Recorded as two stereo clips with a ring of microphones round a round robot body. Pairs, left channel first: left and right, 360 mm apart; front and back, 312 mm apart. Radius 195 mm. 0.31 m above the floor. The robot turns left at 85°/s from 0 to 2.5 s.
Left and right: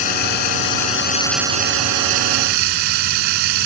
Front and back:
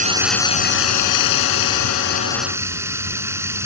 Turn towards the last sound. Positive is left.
turn(degrees=-95)